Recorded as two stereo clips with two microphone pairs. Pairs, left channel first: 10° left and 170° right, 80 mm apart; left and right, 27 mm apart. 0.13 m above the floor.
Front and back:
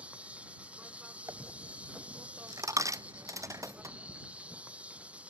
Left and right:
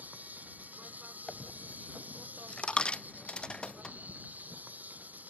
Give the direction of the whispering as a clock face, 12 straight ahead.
I don't hear whispering.